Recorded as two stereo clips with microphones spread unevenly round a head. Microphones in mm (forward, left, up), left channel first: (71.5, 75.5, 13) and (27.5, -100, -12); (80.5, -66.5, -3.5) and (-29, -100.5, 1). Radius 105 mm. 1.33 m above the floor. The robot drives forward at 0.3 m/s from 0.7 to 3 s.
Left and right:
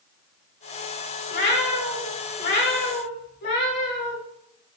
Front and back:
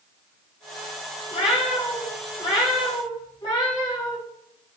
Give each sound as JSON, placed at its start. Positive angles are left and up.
{"t": 1.3, "sound": "a cat meowing", "azimuth_deg": 65, "distance_m": 2.0}